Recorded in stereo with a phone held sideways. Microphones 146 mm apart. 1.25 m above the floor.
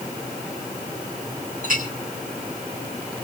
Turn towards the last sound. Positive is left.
turn(degrees=-70)  # may be behind; listen again after turning